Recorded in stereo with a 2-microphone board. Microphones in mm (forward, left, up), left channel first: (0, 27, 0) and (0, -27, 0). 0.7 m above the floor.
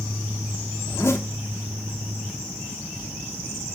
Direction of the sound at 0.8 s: 60° left (ahead or behind).